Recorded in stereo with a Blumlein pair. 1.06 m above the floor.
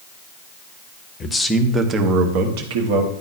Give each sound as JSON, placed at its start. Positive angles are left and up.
{"t": 1.2, "sound": "a man speaking", "azimuth_deg": 20, "distance_m": 0.9}